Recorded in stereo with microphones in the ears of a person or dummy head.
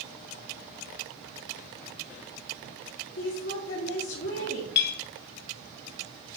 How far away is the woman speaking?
About 2 m.